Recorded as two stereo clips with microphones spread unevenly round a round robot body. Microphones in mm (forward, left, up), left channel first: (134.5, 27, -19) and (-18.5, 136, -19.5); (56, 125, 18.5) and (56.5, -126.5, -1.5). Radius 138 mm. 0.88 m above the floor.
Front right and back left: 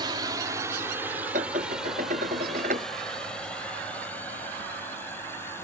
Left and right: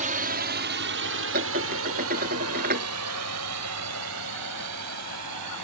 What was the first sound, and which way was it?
A drone, 145° right.